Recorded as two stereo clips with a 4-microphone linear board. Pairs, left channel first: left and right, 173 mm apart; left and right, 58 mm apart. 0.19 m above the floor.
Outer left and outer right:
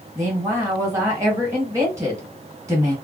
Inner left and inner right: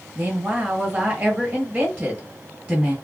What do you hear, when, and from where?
0.1 s a woman speaking: 20° right (ahead or behind), 1.3 m